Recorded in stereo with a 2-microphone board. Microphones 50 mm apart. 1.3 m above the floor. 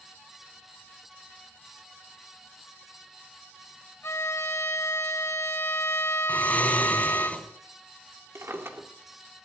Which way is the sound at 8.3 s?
55° right (ahead or behind).